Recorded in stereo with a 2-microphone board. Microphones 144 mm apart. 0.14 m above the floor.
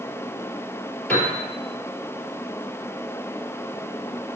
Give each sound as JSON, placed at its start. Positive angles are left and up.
{"t": 1.1, "sound": "a piano", "side_deg": 10, "distance_m": 3.5}